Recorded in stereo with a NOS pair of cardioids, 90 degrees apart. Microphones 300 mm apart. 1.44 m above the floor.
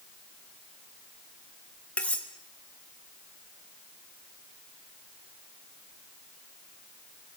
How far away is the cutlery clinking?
About 2.5 m.